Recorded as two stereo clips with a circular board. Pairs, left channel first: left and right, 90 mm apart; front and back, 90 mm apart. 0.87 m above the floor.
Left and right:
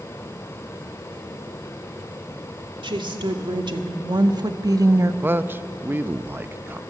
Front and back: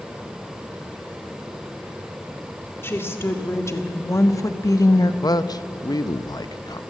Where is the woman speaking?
65° right, 2 m; by 5.1 s 35° right, 0.8 m.